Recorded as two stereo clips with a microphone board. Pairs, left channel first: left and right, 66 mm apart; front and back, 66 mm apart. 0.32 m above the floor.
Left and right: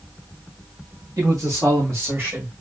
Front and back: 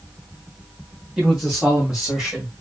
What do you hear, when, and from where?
1.2 s a man speaking: 100° right, 3 m